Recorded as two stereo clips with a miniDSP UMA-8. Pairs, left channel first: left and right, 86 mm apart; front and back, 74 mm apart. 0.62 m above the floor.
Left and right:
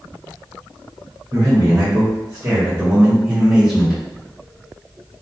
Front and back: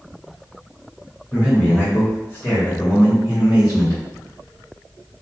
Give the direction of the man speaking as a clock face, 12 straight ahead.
3 o'clock.